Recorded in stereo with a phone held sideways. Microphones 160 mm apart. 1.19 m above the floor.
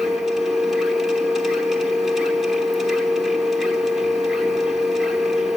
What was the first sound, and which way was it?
A machine running, centre (ahead or behind).